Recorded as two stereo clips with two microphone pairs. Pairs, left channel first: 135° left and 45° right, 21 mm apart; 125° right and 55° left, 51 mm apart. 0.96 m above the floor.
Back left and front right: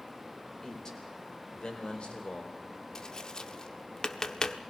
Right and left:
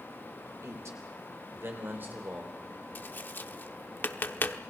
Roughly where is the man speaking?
Left.